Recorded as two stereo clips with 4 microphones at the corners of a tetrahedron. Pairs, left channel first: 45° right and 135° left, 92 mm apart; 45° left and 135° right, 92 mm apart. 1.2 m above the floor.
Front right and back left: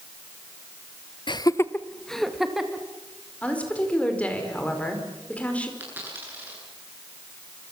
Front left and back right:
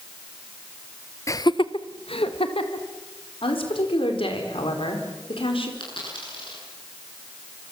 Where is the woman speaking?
30° left, 4.5 m.